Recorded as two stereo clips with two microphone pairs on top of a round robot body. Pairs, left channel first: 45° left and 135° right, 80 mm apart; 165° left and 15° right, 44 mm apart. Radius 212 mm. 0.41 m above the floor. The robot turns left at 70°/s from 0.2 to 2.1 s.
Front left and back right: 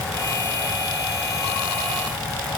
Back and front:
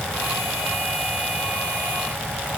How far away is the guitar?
I don't hear a guitar.